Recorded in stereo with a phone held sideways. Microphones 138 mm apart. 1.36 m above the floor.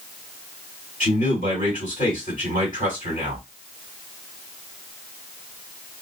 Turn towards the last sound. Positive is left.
turn(degrees=85)